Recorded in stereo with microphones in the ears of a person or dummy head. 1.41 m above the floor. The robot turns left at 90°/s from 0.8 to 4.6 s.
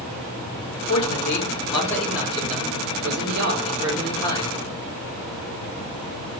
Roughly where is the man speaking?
Left.